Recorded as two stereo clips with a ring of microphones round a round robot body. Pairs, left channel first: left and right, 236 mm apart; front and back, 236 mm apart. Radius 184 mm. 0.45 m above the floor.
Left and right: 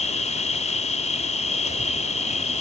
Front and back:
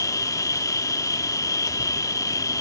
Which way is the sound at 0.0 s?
65° left.